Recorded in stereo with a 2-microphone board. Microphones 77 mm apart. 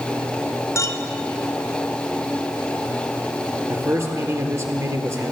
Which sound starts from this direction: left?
A clink, at 0.8 s.